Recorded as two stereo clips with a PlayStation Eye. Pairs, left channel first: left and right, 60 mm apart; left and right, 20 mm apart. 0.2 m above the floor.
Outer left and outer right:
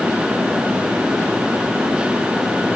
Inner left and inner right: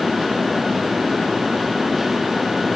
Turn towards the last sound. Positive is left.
No sound to turn to.